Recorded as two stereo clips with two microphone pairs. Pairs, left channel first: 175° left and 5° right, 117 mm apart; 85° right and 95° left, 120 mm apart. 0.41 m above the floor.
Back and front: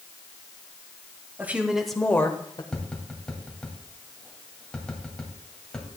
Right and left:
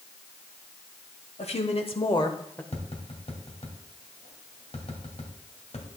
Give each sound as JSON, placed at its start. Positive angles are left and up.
{"t": 1.4, "sound": "a woman speaking", "azimuth_deg": -80, "distance_m": 1.7}
{"t": 2.7, "sound": "tapping", "azimuth_deg": -105, "distance_m": 2.0}